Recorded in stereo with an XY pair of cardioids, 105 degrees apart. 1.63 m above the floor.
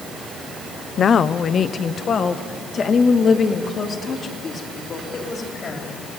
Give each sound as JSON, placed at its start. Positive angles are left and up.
{"t": 1.0, "sound": "a woman speaking", "azimuth_deg": 45, "distance_m": 0.8}